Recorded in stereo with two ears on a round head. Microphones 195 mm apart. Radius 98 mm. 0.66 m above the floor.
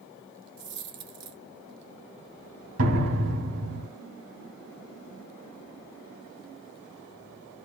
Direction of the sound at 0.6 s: 55° right (ahead or behind).